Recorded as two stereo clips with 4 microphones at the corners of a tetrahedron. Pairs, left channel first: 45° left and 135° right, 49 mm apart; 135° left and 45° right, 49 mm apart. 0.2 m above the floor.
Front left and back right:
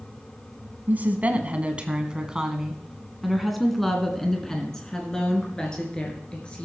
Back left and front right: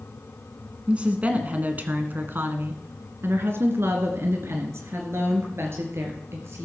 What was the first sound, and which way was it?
A woman speaking, 100° right.